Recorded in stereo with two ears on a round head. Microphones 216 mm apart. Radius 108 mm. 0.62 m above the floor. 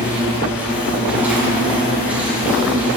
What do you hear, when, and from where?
0.0 s an insect: 5° right (ahead or behind), 6 m